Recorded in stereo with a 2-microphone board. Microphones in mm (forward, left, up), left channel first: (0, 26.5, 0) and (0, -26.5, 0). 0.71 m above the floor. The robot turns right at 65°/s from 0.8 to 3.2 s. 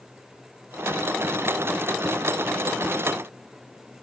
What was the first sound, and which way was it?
Only background noise.